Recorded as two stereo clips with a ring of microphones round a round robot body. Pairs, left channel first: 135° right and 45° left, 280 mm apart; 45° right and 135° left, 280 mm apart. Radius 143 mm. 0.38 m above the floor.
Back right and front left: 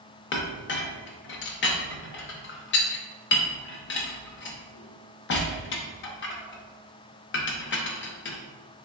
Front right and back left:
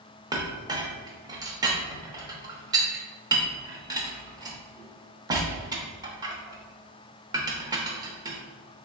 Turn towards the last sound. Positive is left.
turn(degrees=-155)